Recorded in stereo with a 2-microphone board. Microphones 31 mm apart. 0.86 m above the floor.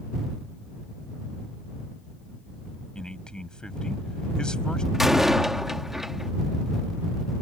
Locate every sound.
3.0 s a man speaking: 25° left (ahead or behind)
4.9 s a door slam: 10° right (ahead or behind)